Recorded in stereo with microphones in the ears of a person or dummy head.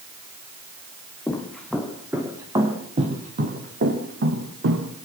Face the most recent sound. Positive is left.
turn(degrees=-65)  # may be behind; listen again after turning